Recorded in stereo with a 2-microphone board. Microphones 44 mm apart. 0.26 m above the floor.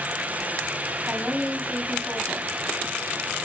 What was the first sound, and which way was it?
A woman speaking, 55° right (ahead or behind).